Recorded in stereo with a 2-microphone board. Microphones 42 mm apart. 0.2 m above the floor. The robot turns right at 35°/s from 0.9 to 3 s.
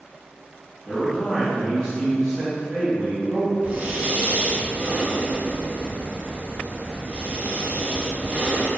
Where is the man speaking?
15° left (ahead or behind), 1.7 m; by 3.5 s 15° right (ahead or behind), 1.7 m.